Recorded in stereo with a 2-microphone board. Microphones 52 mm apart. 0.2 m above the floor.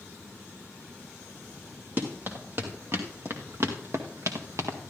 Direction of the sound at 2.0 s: 40° right (ahead or behind).